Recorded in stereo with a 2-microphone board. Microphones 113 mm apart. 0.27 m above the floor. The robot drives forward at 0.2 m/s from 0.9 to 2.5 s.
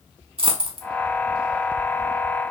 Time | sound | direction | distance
0.4 | a dropped coin | 50° right (ahead or behind) | 0.7 m